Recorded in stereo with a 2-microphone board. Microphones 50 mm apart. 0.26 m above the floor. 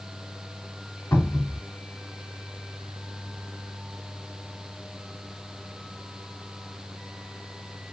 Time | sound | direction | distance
1.1 | a cupboard door | 55° left (ahead or behind) | 3 m